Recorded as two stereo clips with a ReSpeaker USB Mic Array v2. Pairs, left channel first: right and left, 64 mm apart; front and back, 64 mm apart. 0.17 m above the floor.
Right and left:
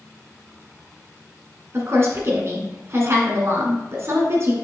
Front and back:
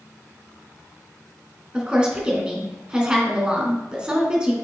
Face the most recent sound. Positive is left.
turn(degrees=110)